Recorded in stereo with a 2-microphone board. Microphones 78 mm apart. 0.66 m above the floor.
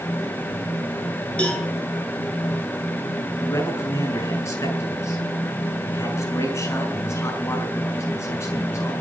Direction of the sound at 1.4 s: 15° left (ahead or behind).